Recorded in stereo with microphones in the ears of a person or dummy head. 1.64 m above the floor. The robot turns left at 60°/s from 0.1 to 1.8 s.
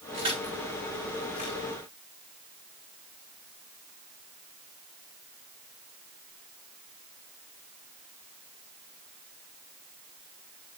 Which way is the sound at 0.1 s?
35° right (ahead or behind).